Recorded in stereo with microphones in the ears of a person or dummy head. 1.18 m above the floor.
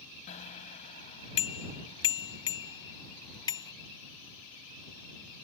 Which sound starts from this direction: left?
A bicycle bell, at 0.3 s.